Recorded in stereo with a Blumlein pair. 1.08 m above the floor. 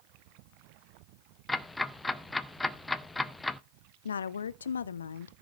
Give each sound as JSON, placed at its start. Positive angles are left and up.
{"t": 1.5, "sound": "ticking", "azimuth_deg": 10, "distance_m": 0.6}
{"t": 4.0, "sound": "a woman speaking", "azimuth_deg": 70, "distance_m": 0.6}